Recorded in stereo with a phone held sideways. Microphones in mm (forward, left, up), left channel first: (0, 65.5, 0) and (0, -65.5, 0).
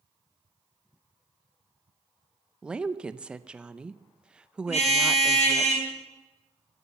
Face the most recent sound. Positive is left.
turn(degrees=65)  # may be behind; listen again after turning